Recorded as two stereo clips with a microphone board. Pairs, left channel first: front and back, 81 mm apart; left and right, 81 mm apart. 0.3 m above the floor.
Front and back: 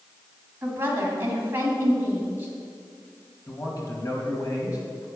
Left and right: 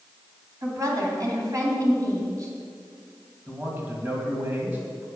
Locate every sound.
0.6 s a woman speaking: 120° right, 2.5 m
3.5 s a man speaking: 30° right, 2.5 m